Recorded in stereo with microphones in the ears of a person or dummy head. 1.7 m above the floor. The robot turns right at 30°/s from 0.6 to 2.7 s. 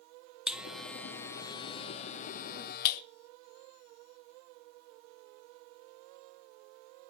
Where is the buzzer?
5° right (ahead or behind), 0.9 m; by 3.0 s 50° left (ahead or behind), 0.9 m.